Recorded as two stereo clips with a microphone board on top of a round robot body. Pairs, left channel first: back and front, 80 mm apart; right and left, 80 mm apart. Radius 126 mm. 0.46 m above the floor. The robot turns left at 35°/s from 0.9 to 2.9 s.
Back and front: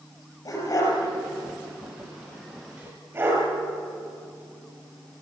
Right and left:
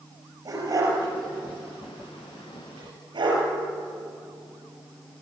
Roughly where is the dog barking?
Behind left.